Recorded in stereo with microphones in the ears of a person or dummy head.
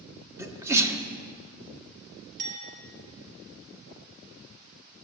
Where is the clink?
50° right (ahead or behind), 5 m.